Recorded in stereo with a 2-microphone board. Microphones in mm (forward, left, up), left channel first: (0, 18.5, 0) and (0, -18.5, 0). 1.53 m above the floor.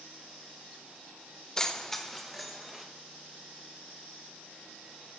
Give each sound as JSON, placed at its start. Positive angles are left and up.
{"t": 1.6, "sound": "keys jangling", "side_deg": 20, "distance_m": 0.6}